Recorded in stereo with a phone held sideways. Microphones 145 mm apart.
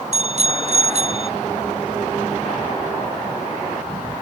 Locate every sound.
0.1 s a bicycle bell: 50° right (ahead or behind)